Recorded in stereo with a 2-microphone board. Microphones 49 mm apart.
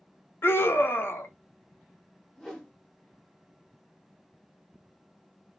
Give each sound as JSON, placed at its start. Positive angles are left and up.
{"t": 0.4, "sound": "a scream", "side_deg": 50, "distance_m": 0.7}
{"t": 2.4, "sound": "a whoosh", "side_deg": 10, "distance_m": 0.8}